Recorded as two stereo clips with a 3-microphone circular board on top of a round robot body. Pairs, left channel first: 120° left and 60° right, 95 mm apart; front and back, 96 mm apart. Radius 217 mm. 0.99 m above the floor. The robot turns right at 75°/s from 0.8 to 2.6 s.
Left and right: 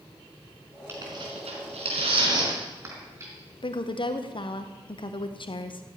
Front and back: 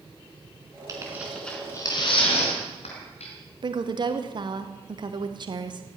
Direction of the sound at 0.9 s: 125° right.